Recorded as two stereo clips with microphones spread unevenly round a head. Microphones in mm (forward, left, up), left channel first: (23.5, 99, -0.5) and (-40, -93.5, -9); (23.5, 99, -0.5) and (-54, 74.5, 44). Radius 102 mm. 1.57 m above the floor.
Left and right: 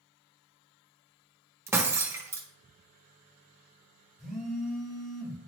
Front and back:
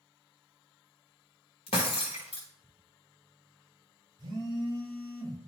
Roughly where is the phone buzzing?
Behind.